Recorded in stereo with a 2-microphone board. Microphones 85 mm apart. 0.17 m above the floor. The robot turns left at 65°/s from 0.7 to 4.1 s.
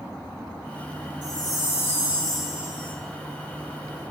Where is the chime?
75° left, 0.5 m; by 3.0 s 35° right, 0.5 m.